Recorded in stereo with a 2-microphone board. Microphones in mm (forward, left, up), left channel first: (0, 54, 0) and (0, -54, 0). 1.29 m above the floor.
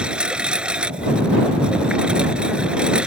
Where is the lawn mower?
10° right (ahead or behind).